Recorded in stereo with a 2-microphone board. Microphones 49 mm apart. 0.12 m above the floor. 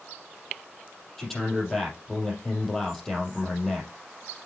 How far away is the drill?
No drill in this recording.